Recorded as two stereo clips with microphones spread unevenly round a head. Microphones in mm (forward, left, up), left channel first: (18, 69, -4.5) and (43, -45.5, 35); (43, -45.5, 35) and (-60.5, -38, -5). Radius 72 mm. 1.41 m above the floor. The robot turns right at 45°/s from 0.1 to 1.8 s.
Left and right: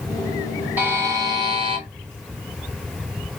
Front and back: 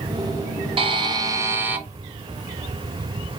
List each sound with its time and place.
0.8 s a buzzer: 140° right, 1.0 m; by 1.8 s 95° right, 1.0 m